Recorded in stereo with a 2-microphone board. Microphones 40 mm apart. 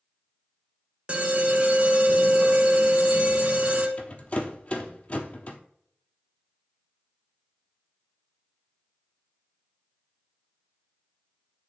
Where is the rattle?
35° left (ahead or behind), 0.8 m.